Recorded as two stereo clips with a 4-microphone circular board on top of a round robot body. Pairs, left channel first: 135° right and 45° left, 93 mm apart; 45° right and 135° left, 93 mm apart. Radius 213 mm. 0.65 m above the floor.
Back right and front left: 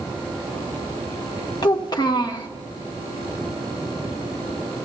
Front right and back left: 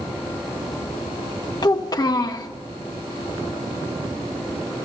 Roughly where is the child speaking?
Right.